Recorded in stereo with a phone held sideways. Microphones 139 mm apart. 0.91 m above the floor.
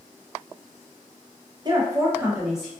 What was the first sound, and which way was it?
A woman speaking, 30° right (ahead or behind).